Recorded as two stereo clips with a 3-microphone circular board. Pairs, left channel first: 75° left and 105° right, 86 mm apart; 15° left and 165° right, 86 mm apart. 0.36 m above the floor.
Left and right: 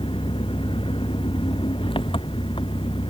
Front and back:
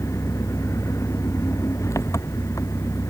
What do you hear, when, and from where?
0.0 s an engine running: 70° left